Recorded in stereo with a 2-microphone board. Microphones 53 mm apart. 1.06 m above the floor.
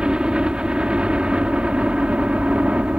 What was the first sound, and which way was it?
A helicopter, 20° right (ahead or behind).